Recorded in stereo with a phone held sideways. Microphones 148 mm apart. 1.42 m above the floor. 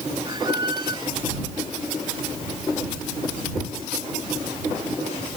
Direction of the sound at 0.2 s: 30° right (ahead or behind).